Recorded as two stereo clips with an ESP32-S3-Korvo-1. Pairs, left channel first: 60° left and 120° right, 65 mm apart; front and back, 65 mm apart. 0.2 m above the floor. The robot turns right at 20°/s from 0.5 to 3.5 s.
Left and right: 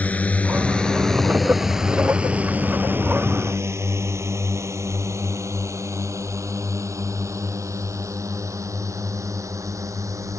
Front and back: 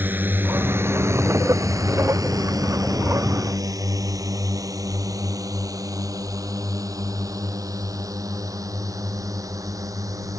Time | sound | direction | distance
0.0 | a drone | 125° left | ?